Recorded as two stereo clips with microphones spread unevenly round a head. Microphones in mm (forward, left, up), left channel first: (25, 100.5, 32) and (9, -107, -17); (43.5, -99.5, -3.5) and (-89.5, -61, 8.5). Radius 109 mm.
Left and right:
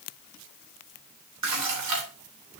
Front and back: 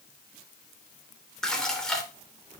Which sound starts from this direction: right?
Dishes clattering, at 1.4 s.